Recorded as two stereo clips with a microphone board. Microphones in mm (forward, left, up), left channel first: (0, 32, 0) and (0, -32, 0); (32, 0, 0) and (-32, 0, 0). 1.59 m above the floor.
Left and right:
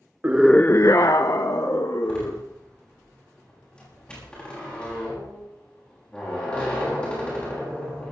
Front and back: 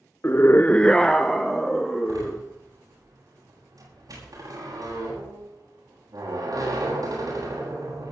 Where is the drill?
No drill in this recording.